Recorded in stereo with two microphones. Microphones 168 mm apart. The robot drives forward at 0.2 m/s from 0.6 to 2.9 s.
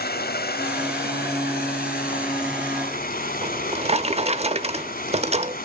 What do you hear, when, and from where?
0.0 s running water: 70° left (ahead or behind), 0.9 m; by 5.7 s 55° left (ahead or behind), 1.0 m
3.4 s a drawer: 40° right (ahead or behind), 0.6 m